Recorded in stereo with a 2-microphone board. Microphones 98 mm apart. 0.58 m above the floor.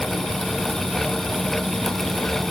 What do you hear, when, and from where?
Only background noise.